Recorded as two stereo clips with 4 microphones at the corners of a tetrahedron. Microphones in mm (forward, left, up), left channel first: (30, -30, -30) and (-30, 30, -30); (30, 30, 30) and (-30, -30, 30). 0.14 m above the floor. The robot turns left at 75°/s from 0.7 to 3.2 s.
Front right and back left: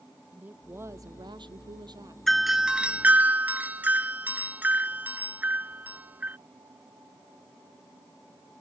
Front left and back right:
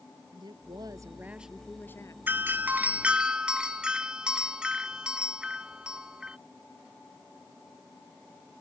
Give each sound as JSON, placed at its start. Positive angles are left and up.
{"t": 0.3, "sound": "a woman speaking", "azimuth_deg": -160}
{"t": 2.3, "sound": "a doorbell", "azimuth_deg": -130}